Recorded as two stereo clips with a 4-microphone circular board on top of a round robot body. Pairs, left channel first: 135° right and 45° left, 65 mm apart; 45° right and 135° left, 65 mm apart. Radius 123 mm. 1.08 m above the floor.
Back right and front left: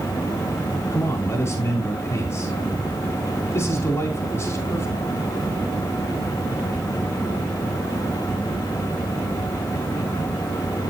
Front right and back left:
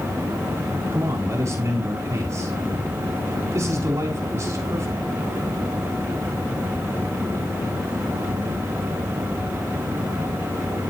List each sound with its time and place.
0.9 s a man speaking: 170° left, 2.5 m